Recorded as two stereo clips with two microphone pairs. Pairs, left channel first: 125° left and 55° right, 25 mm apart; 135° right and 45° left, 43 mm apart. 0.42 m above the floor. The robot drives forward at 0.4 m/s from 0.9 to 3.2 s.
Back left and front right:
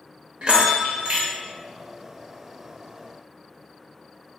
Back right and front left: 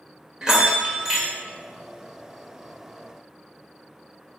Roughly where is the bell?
Ahead right.